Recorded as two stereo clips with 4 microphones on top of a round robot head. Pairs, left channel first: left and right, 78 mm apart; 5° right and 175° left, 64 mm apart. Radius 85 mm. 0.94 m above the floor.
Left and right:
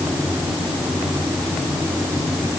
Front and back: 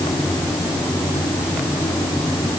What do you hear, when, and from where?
Only background noise.